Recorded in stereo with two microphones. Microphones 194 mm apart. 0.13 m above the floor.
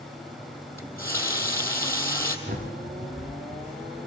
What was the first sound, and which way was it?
A running tap, 15° left (ahead or behind).